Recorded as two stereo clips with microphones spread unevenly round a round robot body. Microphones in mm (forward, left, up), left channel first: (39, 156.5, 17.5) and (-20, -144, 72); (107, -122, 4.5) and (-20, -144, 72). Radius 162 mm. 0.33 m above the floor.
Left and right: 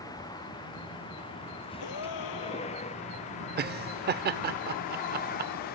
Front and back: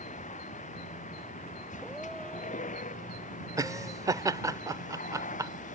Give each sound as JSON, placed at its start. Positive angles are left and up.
{"t": 0.0, "sound": "a vehicle", "azimuth_deg": 0}
{"t": 1.8, "sound": "a gasp", "azimuth_deg": 100}
{"t": 3.6, "sound": "laughter", "azimuth_deg": -70}